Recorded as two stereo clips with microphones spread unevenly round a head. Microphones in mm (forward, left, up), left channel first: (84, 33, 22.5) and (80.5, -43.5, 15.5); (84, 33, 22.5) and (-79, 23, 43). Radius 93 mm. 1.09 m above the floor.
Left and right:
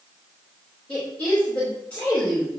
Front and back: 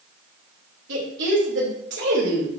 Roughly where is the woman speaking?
Behind.